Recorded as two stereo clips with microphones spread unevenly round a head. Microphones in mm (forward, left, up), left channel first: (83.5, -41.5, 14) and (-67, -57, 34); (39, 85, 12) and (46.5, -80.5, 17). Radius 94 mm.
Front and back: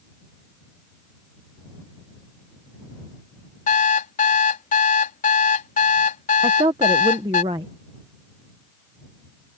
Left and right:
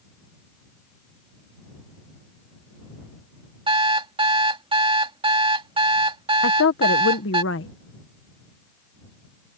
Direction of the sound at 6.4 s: 115° left.